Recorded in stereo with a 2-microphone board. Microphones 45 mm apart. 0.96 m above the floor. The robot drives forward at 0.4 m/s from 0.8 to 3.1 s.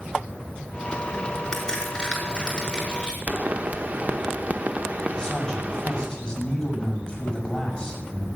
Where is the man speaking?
15° left (ahead or behind), 6.5 m.